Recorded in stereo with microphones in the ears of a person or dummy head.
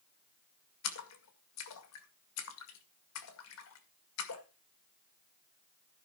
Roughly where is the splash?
Left.